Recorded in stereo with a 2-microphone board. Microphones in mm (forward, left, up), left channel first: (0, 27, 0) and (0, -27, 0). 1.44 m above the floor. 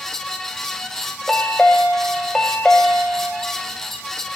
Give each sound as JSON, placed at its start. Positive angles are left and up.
{"t": 1.3, "sound": "a chime", "side_deg": 10, "distance_m": 1.2}